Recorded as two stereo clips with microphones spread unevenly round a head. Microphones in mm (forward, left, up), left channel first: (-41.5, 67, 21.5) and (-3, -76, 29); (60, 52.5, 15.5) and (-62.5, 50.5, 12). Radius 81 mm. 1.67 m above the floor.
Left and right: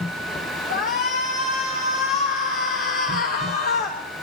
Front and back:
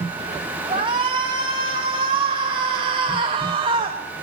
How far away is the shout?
About 3 m.